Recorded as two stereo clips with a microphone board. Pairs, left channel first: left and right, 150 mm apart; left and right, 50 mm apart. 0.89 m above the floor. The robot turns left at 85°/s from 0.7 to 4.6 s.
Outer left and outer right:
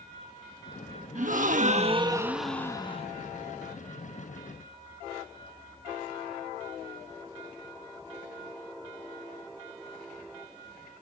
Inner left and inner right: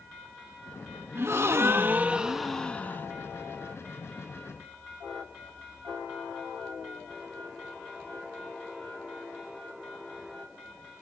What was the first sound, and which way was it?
A gasp, 70° right.